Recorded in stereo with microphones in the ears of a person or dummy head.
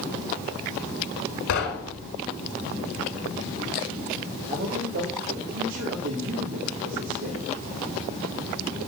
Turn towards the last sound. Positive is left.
turn(degrees=-70)  # may be behind; listen again after turning